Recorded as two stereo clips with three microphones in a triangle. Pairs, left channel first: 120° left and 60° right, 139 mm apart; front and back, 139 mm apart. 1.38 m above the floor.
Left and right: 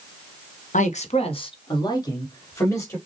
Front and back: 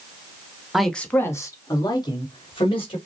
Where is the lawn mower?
I don't hear a lawn mower.